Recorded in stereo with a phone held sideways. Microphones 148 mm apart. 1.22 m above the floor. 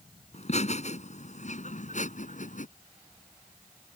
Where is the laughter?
50° left (ahead or behind); by 2.7 s 60° left (ahead or behind).